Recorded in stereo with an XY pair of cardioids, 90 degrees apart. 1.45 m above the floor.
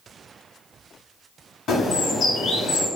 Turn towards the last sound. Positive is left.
turn(degrees=70)